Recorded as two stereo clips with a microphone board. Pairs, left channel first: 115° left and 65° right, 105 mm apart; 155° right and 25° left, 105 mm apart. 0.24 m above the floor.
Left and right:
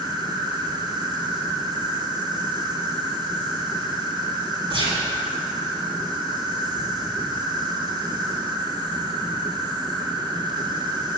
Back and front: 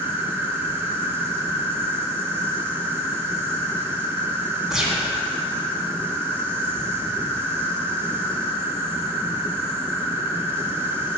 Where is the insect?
40° right, 1.3 m.